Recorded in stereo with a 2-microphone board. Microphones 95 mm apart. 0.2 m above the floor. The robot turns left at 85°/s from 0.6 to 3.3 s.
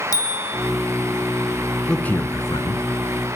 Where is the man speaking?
175° left, 2 m; by 2.9 s 95° left, 2 m.